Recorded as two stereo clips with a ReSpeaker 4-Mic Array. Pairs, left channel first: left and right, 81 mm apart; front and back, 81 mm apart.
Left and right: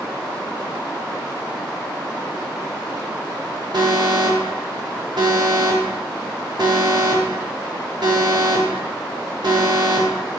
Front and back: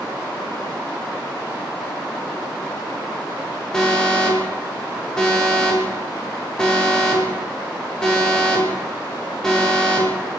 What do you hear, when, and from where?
3.7 s an alarm: 80° right, 2.5 m